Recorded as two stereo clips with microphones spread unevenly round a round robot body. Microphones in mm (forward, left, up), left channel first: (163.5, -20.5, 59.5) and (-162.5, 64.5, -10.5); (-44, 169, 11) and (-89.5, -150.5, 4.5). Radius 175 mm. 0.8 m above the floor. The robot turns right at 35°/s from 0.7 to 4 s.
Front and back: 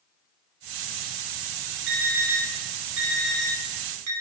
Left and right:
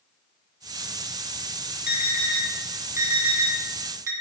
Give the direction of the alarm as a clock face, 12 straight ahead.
7 o'clock.